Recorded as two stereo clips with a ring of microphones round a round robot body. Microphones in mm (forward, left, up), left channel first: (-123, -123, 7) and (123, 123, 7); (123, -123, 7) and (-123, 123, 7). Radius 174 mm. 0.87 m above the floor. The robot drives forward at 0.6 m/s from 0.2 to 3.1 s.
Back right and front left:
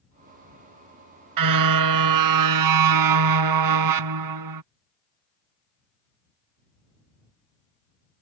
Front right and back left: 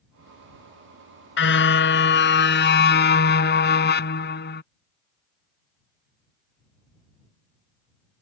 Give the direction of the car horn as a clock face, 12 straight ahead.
12 o'clock.